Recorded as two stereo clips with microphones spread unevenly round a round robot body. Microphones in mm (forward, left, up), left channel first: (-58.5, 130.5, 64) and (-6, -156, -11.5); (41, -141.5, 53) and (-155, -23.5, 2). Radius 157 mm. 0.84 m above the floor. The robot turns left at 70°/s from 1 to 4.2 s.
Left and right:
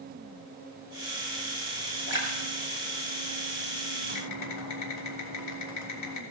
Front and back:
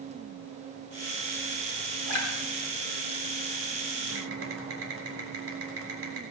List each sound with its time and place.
2.1 s a splash: 10° left, 2.5 m; by 3.8 s 110° right, 2.5 m
4.1 s typing on a keyboard: 140° left, 3 m; by 6.2 s 135° left, 3 m